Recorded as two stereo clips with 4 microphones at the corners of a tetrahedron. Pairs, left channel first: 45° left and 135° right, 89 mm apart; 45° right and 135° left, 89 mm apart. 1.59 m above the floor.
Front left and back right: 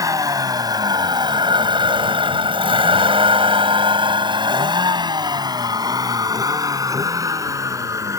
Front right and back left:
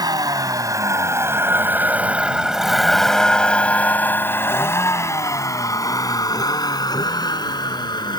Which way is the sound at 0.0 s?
175° left.